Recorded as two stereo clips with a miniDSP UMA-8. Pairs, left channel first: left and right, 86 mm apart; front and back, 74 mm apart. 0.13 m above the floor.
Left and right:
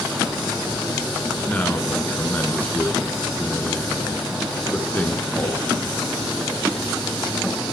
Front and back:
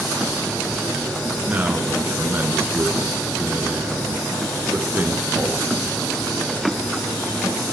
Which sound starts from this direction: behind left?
A man speaking, at 1.5 s.